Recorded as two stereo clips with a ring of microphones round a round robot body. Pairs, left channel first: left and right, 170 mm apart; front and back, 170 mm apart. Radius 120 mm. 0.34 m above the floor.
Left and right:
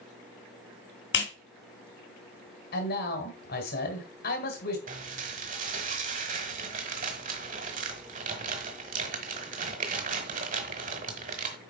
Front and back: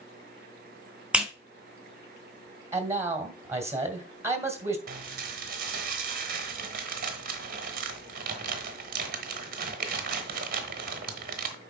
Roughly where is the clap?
Left.